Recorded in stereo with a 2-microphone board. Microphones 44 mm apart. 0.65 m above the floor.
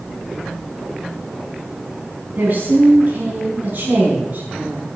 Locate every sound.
2.4 s a woman speaking: 40° right (ahead or behind), 5 m